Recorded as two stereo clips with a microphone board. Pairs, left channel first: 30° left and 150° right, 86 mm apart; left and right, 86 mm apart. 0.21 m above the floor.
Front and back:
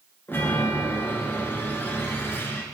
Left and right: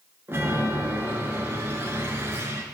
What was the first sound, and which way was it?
A chime, 30° right.